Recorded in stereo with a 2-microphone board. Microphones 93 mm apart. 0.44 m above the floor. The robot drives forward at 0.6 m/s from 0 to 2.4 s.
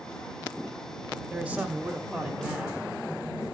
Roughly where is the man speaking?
Centre.